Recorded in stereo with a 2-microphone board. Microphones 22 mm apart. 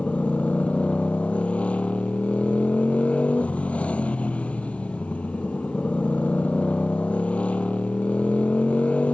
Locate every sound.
0.0 s a motorcycle: 80° left